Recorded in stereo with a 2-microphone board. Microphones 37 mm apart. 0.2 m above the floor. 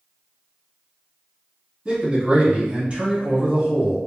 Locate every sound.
1.9 s a man speaking: 25° right (ahead or behind), 1.4 m